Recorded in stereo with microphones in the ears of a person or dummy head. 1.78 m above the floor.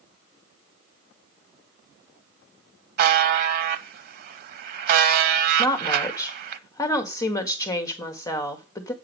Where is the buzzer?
55° right (ahead or behind), 0.6 m.